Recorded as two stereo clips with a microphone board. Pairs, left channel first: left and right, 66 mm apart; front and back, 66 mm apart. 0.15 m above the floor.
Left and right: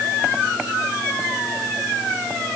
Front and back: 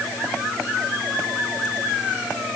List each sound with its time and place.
Only background noise.